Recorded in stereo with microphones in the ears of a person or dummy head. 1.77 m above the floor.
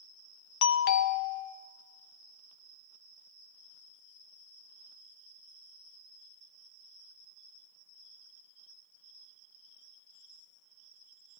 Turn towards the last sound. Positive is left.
turn(degrees=55)  # may be behind; listen again after turning